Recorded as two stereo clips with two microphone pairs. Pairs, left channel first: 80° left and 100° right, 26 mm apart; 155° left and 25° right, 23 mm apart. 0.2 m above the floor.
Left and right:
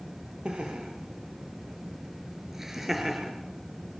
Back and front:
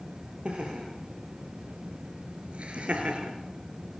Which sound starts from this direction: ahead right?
Laughter, at 0.5 s.